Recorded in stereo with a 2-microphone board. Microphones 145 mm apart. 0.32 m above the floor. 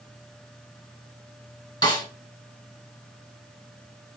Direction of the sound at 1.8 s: 30° left (ahead or behind).